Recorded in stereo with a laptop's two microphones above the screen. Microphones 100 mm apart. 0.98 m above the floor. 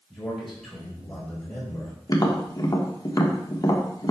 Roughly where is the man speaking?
Centre.